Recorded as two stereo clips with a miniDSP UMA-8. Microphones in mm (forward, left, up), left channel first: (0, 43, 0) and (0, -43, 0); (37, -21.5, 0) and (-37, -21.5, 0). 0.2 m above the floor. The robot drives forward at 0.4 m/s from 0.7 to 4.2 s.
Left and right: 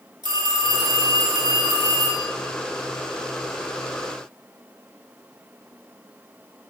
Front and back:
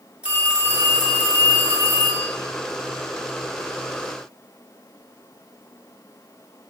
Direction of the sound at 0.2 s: 105° right.